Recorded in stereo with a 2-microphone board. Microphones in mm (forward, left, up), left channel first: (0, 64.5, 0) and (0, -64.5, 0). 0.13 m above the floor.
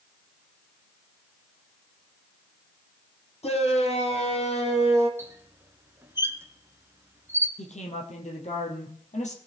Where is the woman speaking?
65° left (ahead or behind), 3.5 m.